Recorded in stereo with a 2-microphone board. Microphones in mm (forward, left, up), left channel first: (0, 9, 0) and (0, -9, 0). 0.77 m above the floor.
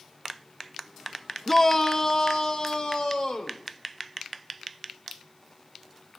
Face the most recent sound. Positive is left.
turn(degrees=45)  # may be behind; listen again after turning